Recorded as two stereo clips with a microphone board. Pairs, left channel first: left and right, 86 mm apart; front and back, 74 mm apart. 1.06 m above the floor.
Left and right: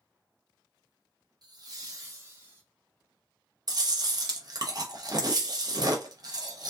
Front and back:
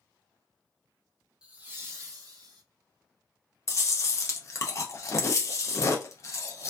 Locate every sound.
1.4 s laughter: 105° right, 0.8 m; by 2.6 s 150° right, 1.3 m
3.7 s chewing: 50° right, 0.6 m